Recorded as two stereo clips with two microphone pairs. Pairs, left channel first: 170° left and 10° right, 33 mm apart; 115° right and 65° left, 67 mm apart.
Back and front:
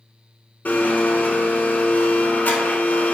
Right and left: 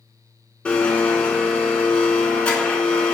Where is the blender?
175° left, 0.7 m.